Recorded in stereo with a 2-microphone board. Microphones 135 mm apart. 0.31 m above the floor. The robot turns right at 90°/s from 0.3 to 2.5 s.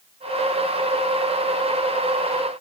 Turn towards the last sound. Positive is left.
No sound to turn to.